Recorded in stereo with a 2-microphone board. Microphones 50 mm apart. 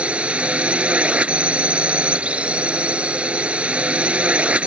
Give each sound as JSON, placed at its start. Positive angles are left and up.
{"t": 0.0, "sound": "a drone", "side_deg": -25}